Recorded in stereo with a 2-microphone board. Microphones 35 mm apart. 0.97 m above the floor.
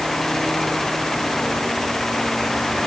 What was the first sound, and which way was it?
Only background noise.